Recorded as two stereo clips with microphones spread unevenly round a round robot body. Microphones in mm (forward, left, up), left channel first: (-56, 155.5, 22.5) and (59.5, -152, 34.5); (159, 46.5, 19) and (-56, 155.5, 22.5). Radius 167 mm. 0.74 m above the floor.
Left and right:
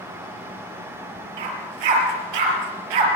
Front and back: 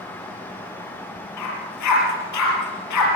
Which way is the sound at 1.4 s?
65° right.